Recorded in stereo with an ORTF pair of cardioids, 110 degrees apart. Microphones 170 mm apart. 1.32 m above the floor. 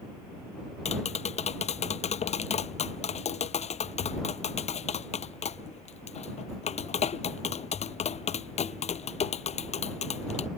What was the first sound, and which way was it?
Tapping, 40° left.